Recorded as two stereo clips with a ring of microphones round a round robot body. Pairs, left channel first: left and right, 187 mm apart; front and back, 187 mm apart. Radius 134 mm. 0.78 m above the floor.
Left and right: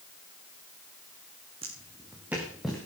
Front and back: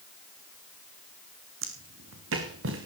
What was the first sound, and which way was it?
Footsteps, 160° right.